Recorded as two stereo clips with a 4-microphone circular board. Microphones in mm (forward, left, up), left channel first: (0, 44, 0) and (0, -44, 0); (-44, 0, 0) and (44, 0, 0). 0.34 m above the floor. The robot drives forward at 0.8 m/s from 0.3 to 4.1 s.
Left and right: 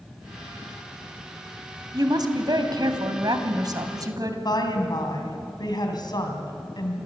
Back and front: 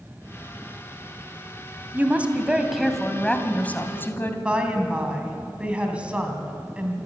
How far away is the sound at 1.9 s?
About 2 m.